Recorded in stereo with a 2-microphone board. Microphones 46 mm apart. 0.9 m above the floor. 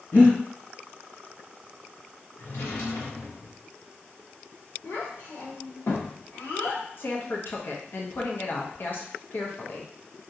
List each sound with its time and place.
0.1 s breathing: 60° left (ahead or behind), 2.0 m
2.4 s a drawer: 80° left, 0.9 m
4.8 s a child speaking: 75° left (ahead or behind), 1.6 m
7.0 s a woman speaking: 50° left (ahead or behind), 0.8 m